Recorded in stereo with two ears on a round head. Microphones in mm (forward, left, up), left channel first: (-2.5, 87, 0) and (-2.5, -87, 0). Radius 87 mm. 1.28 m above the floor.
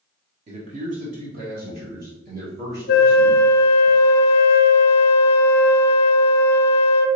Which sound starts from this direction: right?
A man speaking, at 0.5 s.